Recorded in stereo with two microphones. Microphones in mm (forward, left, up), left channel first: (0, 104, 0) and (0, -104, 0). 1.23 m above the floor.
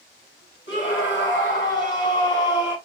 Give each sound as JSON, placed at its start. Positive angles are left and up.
{"t": 0.7, "sound": "a scream", "side_deg": 60, "distance_m": 2.5}